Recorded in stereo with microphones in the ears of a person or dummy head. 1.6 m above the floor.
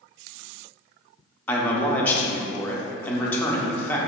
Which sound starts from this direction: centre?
A man speaking, at 1.5 s.